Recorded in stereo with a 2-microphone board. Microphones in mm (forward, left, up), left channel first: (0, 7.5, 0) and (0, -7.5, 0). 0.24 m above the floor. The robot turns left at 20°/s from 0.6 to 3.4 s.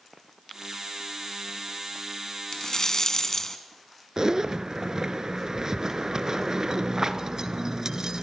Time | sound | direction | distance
2.5 | a rattle | 45° left (ahead or behind) | 1.6 m
4.2 | a zipper | 45° right (ahead or behind) | 1.1 m